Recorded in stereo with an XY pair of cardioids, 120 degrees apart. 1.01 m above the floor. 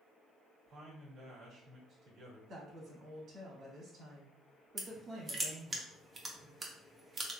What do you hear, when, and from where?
0.7 s a man speaking: 60° right, 1.4 m
2.5 s a woman speaking: 55° right, 1.7 m
4.8 s crushing: 30° right, 0.8 m